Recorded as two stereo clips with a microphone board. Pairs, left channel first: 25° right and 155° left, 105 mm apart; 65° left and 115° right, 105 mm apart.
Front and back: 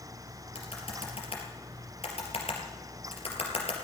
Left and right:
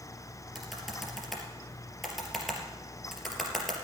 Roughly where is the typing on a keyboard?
Ahead.